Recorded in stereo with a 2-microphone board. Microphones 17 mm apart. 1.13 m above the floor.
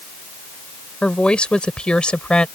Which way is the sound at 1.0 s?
80° left.